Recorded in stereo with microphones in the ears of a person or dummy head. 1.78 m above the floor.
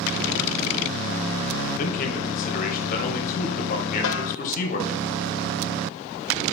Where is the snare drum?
80° left, 0.8 m.